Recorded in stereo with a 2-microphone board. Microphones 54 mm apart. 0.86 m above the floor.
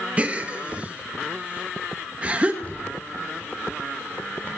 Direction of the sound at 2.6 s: 30° left (ahead or behind).